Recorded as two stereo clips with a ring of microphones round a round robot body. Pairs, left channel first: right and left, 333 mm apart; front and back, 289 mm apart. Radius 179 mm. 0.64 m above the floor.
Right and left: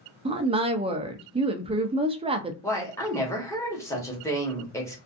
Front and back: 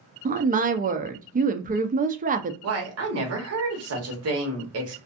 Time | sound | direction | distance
0.2 | a woman speaking | 150° left | 0.5 m
2.6 | a woman speaking | 170° right | 1.2 m